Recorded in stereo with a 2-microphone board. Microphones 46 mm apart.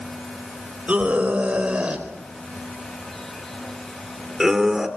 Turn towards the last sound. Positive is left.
turn(degrees=-5)  # may be behind; listen again after turning